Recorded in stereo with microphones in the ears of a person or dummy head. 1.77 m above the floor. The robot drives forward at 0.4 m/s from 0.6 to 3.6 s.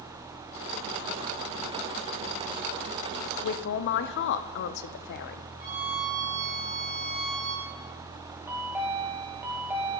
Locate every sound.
3.4 s a man speaking: 70° left (ahead or behind), 0.5 m; by 5.5 s 65° left (ahead or behind), 0.5 m
5.6 s a violin: 35° right (ahead or behind), 2 m
8.5 s a chime: 10° right (ahead or behind), 1.3 m